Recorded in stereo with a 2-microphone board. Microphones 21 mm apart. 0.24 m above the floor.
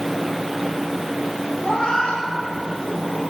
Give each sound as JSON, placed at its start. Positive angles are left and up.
{"t": 1.6, "sound": "a cat meowing", "side_deg": 80, "distance_m": 5.5}